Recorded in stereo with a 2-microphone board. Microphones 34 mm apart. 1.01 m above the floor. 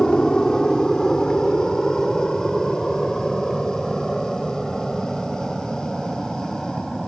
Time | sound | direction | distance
0.0 | an aircraft | 20° left (ahead or behind) | ?